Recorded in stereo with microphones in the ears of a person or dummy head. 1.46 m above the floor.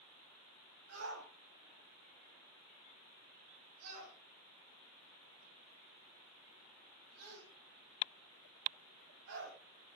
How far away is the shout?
About 9.5 m.